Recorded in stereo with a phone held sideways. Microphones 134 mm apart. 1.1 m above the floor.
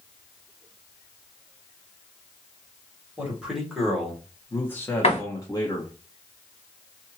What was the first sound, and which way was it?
A man speaking, 10° right (ahead or behind).